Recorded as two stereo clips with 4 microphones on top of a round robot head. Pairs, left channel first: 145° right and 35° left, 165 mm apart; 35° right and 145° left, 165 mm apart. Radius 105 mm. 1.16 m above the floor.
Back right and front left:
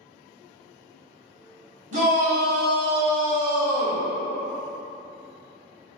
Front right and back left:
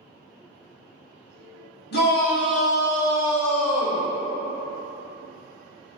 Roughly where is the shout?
Ahead.